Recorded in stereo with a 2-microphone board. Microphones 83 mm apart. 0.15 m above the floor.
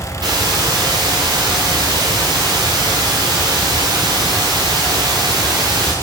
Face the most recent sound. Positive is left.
turn(degrees=-55)  # may be behind; listen again after turning